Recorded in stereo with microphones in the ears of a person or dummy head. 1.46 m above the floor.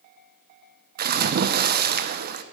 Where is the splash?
45° right (ahead or behind), 0.8 m.